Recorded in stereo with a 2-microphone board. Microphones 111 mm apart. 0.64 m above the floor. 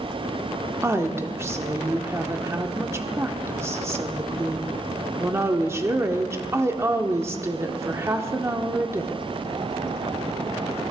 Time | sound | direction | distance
0.8 | a woman speaking | 25° right (ahead or behind) | 1.2 m